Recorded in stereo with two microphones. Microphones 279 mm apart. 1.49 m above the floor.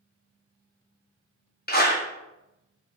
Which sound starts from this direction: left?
A clap, at 1.7 s.